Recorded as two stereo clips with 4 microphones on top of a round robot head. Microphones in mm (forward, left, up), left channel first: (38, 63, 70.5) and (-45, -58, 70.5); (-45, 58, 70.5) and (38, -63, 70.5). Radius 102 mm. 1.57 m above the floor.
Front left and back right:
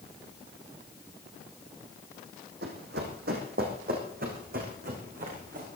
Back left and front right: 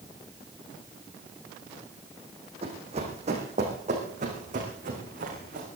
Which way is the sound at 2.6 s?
105° right.